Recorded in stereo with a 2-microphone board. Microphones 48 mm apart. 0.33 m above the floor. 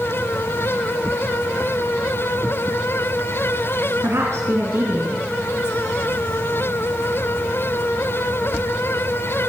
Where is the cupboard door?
No cupboard door in this recording.